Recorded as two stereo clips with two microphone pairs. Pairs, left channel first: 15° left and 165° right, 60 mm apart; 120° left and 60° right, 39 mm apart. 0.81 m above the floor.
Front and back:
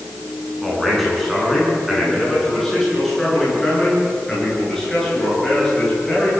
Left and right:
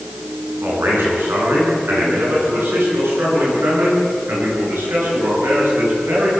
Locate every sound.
0.6 s a man speaking: 75° right, 9.5 m; by 6.4 s 65° right, 15.5 m